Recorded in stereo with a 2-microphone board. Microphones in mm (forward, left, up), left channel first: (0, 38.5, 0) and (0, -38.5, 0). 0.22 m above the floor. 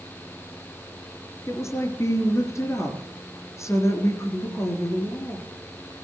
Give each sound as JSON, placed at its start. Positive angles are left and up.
{"t": 1.5, "sound": "a woman speaking", "side_deg": 35, "distance_m": 4.0}